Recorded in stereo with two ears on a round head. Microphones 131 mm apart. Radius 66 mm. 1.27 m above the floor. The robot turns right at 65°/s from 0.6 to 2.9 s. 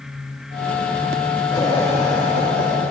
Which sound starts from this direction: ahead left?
Laughter, at 1.5 s.